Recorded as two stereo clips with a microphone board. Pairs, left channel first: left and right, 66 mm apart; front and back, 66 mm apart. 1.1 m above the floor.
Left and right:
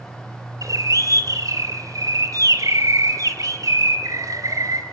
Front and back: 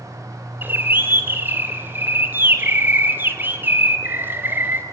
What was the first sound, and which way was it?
A bird, 120° right.